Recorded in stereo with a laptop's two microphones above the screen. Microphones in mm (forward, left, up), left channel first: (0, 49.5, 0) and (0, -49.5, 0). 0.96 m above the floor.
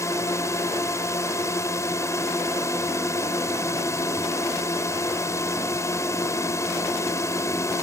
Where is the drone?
30° left (ahead or behind).